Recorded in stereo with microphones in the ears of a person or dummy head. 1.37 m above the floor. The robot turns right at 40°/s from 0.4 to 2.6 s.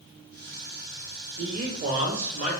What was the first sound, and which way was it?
A man speaking, 90° right.